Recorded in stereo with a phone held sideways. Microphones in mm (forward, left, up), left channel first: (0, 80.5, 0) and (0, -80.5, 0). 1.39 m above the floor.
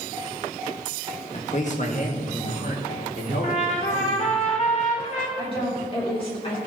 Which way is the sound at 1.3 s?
45° left (ahead or behind).